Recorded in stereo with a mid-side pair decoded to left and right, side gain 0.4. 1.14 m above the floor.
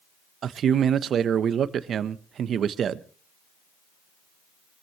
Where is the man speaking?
65° right, 1.1 m.